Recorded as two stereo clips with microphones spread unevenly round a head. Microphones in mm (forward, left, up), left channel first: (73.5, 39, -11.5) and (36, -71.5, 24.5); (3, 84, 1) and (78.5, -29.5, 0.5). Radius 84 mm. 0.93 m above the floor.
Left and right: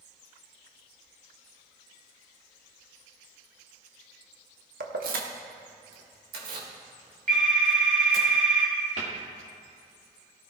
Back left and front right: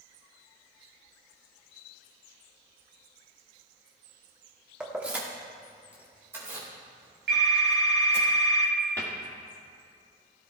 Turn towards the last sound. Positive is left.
turn(degrees=-160)